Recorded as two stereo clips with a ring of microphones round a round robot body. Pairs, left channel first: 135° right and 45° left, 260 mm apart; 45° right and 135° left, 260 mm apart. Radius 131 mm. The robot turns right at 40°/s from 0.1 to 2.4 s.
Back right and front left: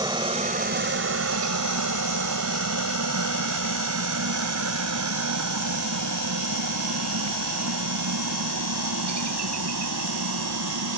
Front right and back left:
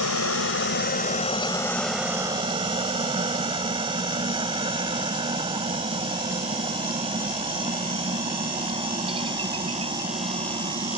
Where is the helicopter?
25° right; by 11.0 s 65° left.